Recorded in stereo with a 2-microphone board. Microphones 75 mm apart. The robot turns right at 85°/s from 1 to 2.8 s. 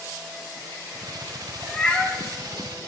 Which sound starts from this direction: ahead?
A cat meowing, at 1.6 s.